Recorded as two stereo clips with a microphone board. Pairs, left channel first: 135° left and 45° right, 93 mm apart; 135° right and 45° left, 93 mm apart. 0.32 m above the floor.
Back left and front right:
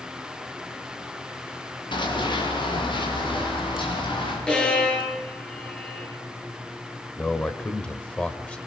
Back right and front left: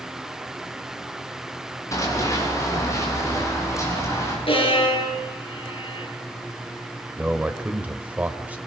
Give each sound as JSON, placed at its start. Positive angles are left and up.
{"t": 1.9, "sound": "running footsteps", "azimuth_deg": 170, "distance_m": 7.0}
{"t": 4.5, "sound": "a violin", "azimuth_deg": -145, "distance_m": 6.0}
{"t": 7.2, "sound": "a man speaking", "azimuth_deg": 85, "distance_m": 1.3}